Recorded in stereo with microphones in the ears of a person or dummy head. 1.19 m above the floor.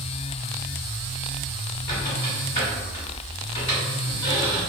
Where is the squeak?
25° left (ahead or behind), 1.5 m.